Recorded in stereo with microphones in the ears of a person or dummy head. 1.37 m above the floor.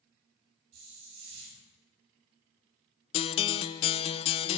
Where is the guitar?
30° left (ahead or behind), 0.6 m.